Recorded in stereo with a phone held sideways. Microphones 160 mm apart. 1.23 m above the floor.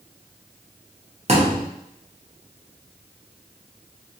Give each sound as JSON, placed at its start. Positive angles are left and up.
{"t": 1.3, "sound": "a thud", "side_deg": -40, "distance_m": 0.8}